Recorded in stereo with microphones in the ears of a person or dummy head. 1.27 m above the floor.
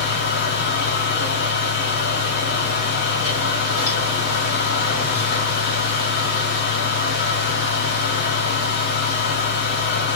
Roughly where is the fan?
Left.